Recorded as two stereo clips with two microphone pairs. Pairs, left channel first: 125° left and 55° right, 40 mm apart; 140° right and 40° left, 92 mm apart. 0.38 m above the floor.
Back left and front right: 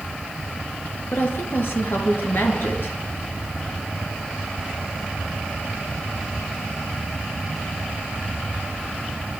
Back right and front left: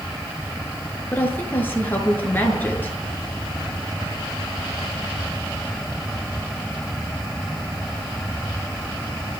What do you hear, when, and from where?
1.1 s a woman speaking: 150° left, 7 m